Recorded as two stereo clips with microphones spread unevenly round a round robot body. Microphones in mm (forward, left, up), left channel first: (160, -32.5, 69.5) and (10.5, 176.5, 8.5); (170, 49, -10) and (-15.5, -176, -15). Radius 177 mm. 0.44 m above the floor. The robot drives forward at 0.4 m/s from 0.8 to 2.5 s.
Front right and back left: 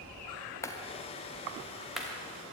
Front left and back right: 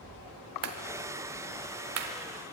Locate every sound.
0.6 s a clap: 145° right, 1.4 m; by 2.1 s 155° right, 1.8 m